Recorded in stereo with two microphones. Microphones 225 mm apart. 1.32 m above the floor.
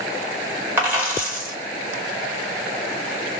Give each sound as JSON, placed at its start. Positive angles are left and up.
{"t": 0.8, "sound": "a dropped coin", "side_deg": -10, "distance_m": 2.0}